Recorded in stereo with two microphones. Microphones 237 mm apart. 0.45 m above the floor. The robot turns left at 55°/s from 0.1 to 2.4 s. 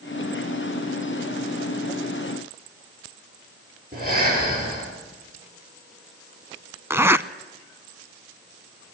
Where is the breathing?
35° right (ahead or behind), 8.5 m.